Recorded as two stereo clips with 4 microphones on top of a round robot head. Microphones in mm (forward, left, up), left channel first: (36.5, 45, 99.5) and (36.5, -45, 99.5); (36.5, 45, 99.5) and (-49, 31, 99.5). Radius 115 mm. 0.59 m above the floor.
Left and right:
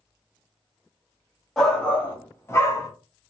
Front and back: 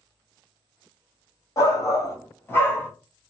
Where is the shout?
10° left, 1.5 m; by 2.9 s 70° left, 1.5 m.